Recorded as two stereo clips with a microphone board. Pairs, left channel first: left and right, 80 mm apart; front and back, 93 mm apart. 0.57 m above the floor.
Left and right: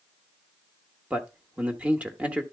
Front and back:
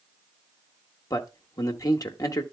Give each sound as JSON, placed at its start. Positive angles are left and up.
{"t": 1.1, "sound": "a man speaking", "azimuth_deg": -25, "distance_m": 1.1}